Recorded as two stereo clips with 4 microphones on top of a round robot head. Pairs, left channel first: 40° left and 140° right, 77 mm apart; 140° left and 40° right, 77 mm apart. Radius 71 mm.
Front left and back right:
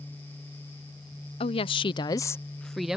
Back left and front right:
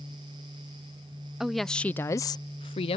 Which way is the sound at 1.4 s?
50° left.